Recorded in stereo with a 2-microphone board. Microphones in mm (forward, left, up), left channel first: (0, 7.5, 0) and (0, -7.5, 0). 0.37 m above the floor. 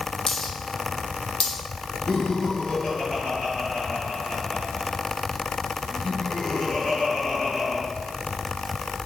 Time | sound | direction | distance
0.3 | a dropped coin | 50° left (ahead or behind) | 3.5 m
2.1 | laughter | 60° left (ahead or behind) | 5 m